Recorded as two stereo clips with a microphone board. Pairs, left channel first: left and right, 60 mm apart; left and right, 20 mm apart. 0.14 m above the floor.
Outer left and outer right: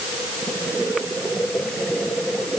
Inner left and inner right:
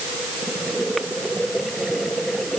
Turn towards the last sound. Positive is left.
No sound to turn to.